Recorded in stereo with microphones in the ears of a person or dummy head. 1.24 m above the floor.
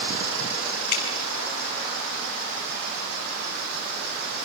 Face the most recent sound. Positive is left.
turn(degrees=55)  # may be behind; listen again after turning